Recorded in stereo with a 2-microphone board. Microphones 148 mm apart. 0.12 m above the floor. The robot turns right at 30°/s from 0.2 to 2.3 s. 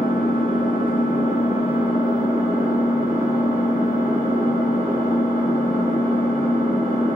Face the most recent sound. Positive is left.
turn(degrees=160)